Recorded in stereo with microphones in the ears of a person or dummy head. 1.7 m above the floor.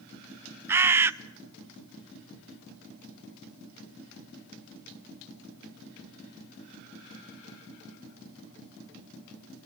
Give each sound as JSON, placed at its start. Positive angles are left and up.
{"t": 0.7, "sound": "a bird", "side_deg": -15, "distance_m": 0.5}